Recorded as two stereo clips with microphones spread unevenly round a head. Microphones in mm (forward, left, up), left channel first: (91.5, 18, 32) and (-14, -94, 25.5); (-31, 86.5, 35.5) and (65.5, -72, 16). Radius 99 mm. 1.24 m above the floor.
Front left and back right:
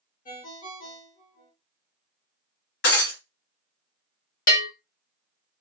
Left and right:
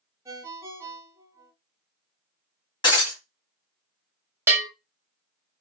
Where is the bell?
20° left, 1.1 m.